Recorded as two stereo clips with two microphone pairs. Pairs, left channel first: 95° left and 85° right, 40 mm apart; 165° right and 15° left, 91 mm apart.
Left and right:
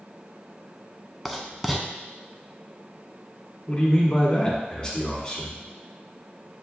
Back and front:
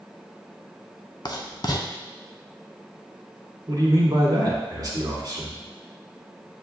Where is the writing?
Straight behind, 0.5 m.